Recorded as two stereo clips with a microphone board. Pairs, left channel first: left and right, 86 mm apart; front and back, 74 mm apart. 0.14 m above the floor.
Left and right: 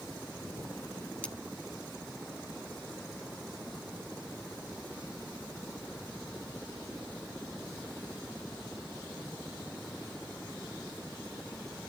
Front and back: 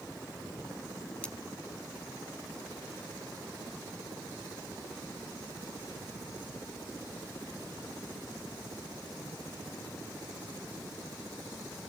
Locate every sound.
1.2 s cutlery clinking: 45° left, 0.9 m